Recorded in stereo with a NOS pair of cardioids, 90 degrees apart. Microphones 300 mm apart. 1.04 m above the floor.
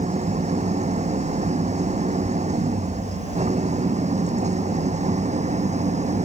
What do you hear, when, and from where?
0.0 s an engine running: 20° right